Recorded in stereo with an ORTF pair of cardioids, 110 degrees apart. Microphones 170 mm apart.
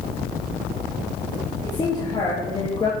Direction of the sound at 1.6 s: 25° left.